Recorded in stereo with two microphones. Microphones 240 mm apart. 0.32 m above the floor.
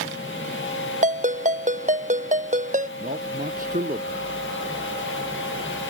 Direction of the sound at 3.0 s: 35° right (ahead or behind).